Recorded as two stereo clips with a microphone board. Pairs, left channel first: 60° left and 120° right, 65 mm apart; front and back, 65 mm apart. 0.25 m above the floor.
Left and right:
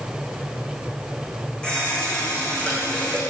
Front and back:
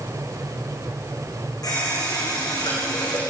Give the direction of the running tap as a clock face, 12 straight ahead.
12 o'clock.